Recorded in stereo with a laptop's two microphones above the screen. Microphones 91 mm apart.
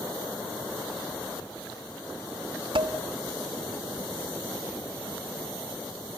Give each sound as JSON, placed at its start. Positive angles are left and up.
{"t": 2.8, "sound": "dishes clattering", "side_deg": -70, "distance_m": 0.8}